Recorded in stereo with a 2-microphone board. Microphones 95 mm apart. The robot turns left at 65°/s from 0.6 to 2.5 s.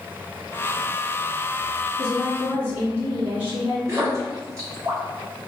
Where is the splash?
35° right (ahead or behind), 1.5 m.